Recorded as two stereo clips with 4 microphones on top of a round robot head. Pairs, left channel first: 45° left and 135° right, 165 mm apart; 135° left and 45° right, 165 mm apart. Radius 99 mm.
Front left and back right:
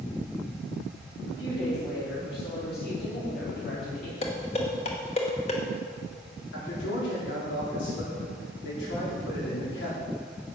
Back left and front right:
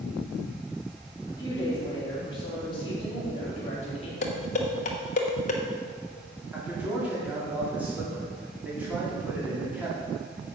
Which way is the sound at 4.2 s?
95° left.